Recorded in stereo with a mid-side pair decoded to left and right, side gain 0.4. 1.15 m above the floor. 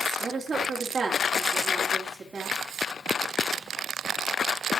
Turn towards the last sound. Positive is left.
turn(degrees=-25)